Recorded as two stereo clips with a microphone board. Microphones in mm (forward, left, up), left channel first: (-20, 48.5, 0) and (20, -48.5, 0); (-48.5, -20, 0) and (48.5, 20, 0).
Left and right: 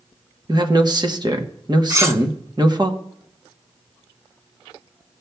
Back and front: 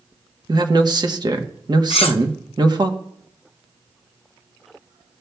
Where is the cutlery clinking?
130° right, 0.7 m.